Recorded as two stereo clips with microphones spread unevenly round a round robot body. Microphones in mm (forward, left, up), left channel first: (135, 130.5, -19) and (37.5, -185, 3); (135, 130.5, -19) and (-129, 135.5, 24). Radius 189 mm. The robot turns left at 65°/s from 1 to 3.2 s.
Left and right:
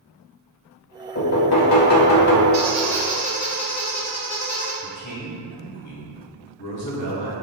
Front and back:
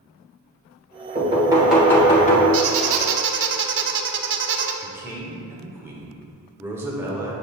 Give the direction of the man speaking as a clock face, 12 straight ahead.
9 o'clock.